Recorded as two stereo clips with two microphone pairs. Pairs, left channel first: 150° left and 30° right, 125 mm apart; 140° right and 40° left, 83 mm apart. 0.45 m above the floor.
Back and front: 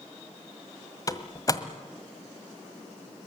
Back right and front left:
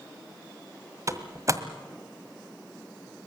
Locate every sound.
1.1 s a door slam: 90° left, 1.6 m